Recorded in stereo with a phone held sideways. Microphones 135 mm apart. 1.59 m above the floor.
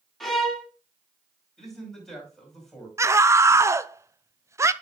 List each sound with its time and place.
0.2 s a violin: centre (ahead or behind), 1.9 m
1.6 s a man speaking: centre (ahead or behind), 5.5 m
3.0 s a scream: 20° right (ahead or behind), 0.6 m